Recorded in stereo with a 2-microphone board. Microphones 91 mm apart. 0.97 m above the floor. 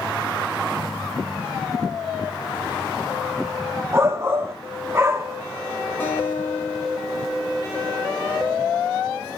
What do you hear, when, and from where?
3.9 s a shout: 30° right (ahead or behind), 1.9 m
6.0 s a guitar: 20° left (ahead or behind), 5.5 m